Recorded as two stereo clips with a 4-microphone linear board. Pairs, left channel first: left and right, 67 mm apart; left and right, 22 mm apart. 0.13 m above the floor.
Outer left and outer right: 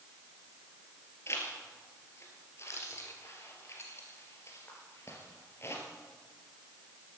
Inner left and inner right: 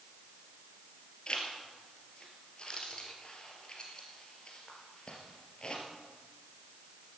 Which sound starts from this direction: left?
A zipper, at 1.3 s.